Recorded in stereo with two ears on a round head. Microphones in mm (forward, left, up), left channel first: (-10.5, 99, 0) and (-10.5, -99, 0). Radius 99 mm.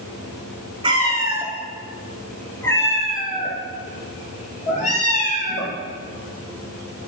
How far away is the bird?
I don't hear a bird.